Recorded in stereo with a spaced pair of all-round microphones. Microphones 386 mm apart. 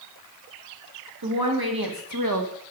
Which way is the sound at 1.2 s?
70° right (ahead or behind).